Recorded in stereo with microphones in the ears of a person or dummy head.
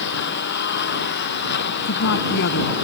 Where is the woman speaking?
60° left (ahead or behind).